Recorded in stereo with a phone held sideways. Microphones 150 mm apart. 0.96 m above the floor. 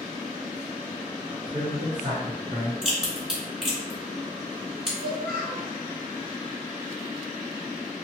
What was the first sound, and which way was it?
A man speaking, 40° right (ahead or behind).